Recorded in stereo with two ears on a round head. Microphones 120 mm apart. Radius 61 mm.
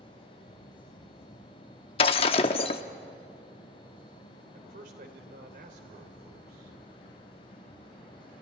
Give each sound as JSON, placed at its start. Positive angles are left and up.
{"t": 2.0, "sound": "breaking glass", "side_deg": 45, "distance_m": 0.9}
{"t": 4.5, "sound": "a man speaking", "side_deg": -75, "distance_m": 3.5}